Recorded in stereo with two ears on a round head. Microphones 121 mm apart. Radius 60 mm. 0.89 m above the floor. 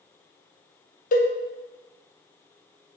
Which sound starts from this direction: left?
A cowbell, at 1.1 s.